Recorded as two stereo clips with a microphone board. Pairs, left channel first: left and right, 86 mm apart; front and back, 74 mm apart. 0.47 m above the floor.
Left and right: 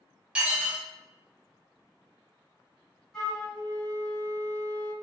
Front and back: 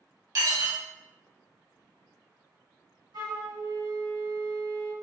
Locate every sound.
0.3 s dishes clattering: 170° right, 1.3 m
3.1 s a flute: 170° left, 1.1 m